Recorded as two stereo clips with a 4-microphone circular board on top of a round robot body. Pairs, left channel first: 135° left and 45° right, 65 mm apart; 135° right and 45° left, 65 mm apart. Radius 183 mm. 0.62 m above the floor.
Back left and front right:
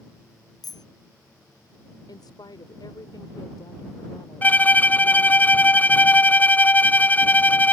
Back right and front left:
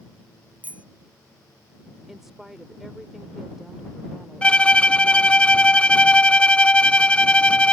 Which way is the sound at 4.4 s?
170° left.